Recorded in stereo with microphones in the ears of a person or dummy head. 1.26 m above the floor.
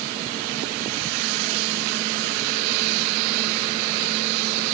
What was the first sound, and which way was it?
Only background noise.